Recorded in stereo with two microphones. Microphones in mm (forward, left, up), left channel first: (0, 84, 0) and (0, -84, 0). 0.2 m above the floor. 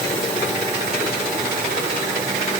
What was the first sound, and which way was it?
Only background noise.